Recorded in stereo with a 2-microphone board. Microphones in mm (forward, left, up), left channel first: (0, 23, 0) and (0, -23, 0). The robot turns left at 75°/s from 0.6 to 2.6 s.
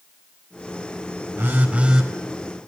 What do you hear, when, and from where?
1.4 s a phone buzzing: 120° right, 4 m; by 2.1 s 175° right, 4 m